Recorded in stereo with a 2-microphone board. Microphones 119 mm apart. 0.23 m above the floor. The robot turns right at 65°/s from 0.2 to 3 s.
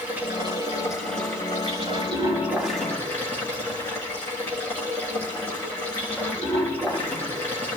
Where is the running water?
165° right, 8 m; by 7.8 s 20° left, 8 m.